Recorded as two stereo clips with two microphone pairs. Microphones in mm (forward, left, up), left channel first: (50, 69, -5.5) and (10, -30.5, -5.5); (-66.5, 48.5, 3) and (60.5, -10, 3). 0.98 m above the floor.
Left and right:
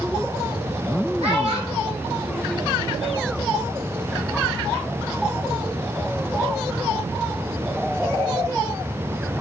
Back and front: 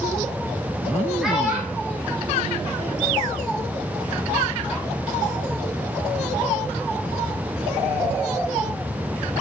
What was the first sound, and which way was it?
A child speaking, 110° right.